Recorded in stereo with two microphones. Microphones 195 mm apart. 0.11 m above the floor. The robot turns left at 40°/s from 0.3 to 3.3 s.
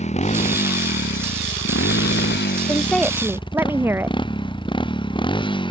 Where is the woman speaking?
15° left (ahead or behind); by 4.2 s 10° right (ahead or behind).